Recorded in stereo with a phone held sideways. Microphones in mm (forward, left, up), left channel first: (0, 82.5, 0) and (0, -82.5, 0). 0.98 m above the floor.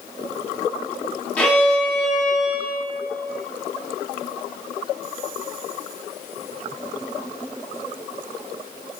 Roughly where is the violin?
Centre.